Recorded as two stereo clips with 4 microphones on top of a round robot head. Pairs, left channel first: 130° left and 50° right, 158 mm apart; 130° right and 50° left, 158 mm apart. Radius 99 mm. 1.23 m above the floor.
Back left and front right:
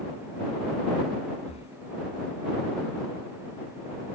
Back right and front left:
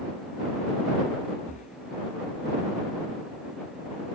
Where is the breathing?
175° right.